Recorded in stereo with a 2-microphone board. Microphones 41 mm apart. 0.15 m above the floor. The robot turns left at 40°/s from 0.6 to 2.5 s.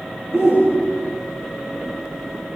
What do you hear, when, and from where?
0.3 s a shout: 15° right (ahead or behind), 5 m; by 1.2 s 40° right (ahead or behind), 5 m